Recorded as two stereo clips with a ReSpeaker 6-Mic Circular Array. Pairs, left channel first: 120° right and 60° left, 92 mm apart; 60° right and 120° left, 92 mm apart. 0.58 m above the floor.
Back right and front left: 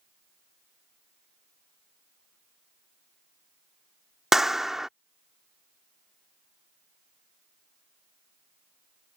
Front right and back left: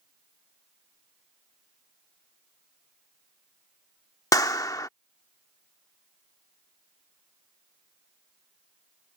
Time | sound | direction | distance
4.3 | a clap | 25° right | ?